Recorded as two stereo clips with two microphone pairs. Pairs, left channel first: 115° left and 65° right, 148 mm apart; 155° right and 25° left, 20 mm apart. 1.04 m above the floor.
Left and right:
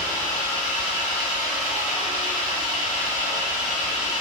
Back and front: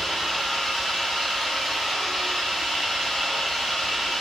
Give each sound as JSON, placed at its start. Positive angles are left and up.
{"t": 0.0, "sound": "an engine running", "azimuth_deg": 140, "distance_m": 1.9}